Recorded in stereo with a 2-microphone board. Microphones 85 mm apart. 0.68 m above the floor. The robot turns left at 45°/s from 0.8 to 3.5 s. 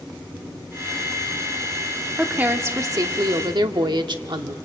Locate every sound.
2.2 s a woman speaking: 15° right, 1.2 m; by 4.6 s 70° right, 1.2 m